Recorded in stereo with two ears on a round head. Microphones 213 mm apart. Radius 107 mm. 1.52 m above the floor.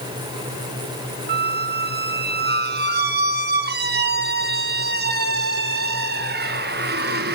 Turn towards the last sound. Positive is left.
turn(degrees=-40)  # may be behind; listen again after turning